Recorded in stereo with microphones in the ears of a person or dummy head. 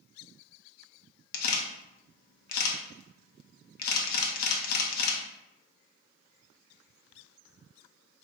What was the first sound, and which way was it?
A camera shutter, 60° left (ahead or behind).